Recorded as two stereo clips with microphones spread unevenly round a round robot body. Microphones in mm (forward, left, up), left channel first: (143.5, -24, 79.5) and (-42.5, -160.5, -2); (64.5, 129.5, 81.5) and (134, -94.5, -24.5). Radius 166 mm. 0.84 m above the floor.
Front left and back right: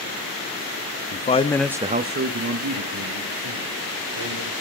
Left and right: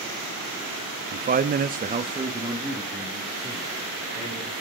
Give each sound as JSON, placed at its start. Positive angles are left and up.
{"t": 1.1, "sound": "a man speaking", "azimuth_deg": -30, "distance_m": 1.0}